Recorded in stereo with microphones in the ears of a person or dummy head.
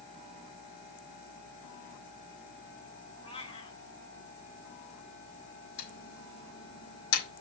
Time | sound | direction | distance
3.2 | a cat meowing | 30° left (ahead or behind) | 2 m
5.8 | typing on a keyboard | 75° left (ahead or behind) | 4 m